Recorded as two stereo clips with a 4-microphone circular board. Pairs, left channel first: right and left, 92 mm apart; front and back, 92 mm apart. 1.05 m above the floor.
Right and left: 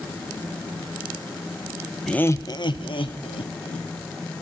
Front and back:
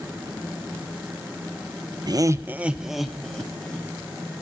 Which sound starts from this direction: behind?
Laughter, at 2.1 s.